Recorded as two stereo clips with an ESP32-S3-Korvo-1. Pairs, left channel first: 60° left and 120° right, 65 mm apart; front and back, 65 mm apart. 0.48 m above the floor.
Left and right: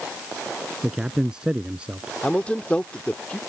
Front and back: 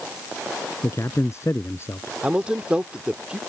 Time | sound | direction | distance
0.8 | a man speaking | 40° right | ?
2.2 | a man speaking | 120° left | ?